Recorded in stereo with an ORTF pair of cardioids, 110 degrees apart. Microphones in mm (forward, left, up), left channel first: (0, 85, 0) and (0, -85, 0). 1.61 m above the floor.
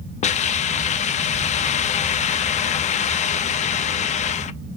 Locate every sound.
0.2 s a hiss: 45° left, 0.5 m